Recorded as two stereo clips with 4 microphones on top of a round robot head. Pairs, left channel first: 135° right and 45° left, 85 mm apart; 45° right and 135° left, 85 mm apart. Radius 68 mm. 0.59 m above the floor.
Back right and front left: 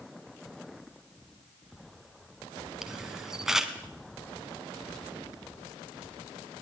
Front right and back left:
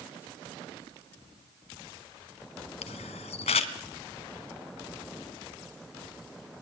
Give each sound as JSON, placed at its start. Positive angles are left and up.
{"t": 2.8, "sound": "a camera shutter", "azimuth_deg": -40, "distance_m": 1.2}